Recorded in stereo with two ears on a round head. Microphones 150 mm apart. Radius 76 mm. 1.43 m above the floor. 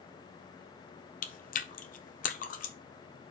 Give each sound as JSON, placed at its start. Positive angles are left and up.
{"t": 1.2, "sound": "chewing", "side_deg": 50, "distance_m": 0.9}